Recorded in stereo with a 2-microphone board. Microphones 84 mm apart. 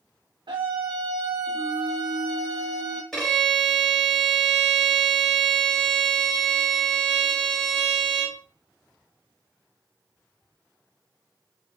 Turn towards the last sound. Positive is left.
turn(degrees=5)  # may be behind; listen again after turning